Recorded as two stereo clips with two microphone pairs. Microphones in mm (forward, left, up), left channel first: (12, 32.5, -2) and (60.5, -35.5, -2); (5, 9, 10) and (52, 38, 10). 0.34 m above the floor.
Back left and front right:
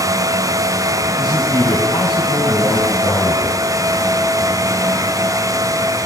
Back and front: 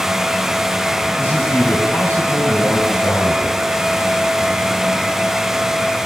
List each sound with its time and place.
1.2 s a man speaking: 170° left, 3 m